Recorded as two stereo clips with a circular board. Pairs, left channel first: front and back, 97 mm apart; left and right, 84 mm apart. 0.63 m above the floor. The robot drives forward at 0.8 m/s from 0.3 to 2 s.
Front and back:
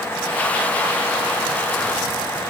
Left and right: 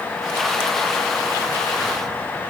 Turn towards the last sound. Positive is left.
No sound to turn to.